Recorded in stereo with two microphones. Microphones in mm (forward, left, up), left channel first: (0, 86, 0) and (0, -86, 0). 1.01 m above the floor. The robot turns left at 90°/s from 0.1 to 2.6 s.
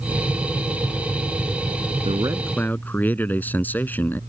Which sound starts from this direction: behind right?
A man speaking, at 2.0 s.